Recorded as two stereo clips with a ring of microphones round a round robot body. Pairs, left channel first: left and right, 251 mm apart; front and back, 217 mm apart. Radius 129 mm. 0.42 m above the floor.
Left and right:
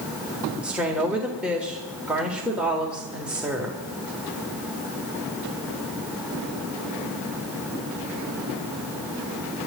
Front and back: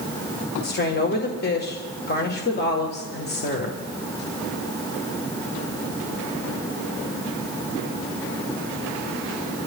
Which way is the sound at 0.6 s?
5° right.